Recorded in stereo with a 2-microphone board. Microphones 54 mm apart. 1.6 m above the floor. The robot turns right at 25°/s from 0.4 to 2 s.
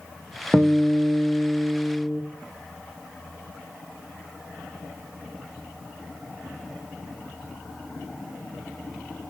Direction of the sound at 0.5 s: 25° right.